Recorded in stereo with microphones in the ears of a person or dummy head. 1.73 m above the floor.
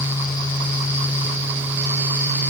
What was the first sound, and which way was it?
Only background noise.